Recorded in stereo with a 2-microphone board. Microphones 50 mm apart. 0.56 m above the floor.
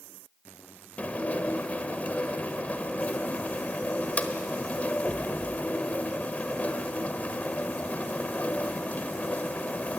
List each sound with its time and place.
1.0 s dishes clattering: 30° left (ahead or behind), 1.3 m